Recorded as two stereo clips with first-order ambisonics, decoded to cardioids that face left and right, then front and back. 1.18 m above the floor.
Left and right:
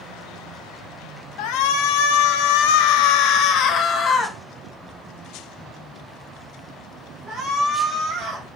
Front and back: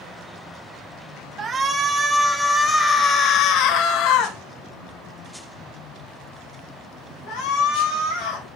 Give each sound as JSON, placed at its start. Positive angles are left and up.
{"t": 1.4, "sound": "a shout", "azimuth_deg": 110, "distance_m": 1.7}